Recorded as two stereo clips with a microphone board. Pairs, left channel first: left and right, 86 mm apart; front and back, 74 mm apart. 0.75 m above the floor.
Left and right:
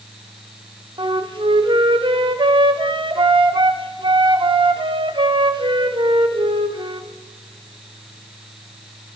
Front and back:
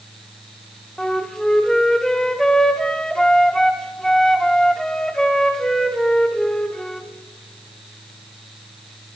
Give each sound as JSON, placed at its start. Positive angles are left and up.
{"t": 1.0, "sound": "a flute", "azimuth_deg": -80, "distance_m": 0.8}